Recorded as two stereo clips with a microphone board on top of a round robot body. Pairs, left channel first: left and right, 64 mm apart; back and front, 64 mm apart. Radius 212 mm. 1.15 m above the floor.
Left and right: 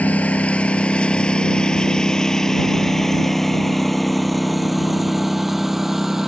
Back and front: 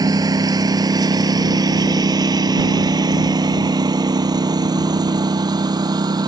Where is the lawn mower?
20° left; by 6.3 s 5° right.